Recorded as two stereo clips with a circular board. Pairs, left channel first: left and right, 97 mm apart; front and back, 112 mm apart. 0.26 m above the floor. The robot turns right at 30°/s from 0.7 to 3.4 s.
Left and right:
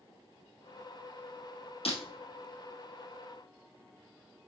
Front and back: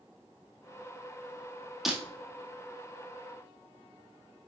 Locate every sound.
1.9 s breaking glass: 95° left, 1.7 m